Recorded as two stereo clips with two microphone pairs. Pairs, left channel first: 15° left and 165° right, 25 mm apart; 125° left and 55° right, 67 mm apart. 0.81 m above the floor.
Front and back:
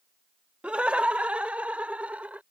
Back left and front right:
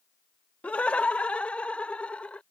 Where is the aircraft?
I don't hear an aircraft.